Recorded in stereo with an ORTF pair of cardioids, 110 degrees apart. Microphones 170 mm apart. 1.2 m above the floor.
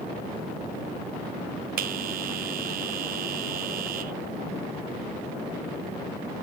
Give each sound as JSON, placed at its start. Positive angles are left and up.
{"t": 1.8, "sound": "a bell", "azimuth_deg": -60, "distance_m": 0.8}